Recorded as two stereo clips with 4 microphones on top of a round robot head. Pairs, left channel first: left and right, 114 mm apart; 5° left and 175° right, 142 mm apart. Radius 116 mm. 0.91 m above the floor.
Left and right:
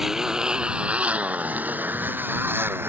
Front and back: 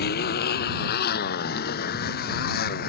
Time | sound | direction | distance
0.0 | a motorcycle | 5° right | ?